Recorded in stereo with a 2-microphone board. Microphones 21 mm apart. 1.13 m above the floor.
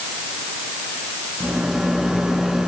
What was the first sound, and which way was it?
A rattle, 40° right (ahead or behind).